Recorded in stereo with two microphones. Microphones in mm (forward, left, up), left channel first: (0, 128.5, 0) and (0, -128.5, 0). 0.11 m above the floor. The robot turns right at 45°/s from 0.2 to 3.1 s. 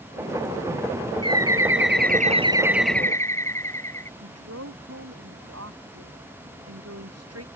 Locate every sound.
1.2 s a bird: 75° right; by 4.1 s 10° left
4.2 s a woman speaking: 70° right (ahead or behind)